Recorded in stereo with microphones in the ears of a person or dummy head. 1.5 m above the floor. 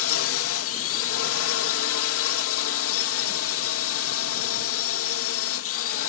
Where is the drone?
70° left (ahead or behind).